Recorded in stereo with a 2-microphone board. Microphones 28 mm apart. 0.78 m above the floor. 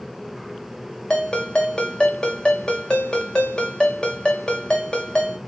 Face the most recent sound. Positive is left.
turn(degrees=35)  # may be behind; listen again after turning